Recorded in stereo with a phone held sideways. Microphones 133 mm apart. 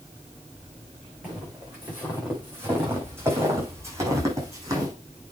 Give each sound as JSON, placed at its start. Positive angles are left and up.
{"t": 1.2, "sound": "footsteps", "side_deg": -10, "distance_m": 6.0}